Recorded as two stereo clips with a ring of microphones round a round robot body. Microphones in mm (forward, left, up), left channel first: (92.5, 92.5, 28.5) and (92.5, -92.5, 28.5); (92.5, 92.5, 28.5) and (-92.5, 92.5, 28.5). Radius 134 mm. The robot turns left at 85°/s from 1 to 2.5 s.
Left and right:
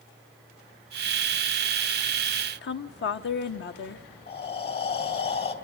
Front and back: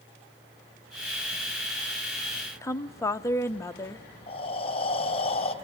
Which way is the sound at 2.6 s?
75° left.